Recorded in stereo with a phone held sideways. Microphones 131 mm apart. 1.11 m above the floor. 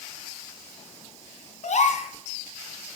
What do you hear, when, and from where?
1.6 s a gasp: 70° left (ahead or behind), 2 m